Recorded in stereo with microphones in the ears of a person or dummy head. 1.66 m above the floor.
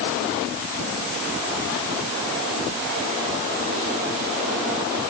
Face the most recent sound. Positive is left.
No sound to turn to.